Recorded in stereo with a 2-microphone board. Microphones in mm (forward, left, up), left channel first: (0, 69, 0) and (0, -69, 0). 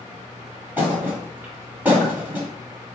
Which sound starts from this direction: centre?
A thud, at 0.8 s.